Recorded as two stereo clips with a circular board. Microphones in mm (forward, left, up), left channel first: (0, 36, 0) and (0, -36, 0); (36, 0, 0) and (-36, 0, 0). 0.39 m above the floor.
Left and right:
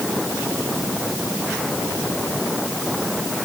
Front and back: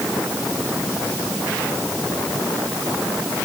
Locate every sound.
Only background noise.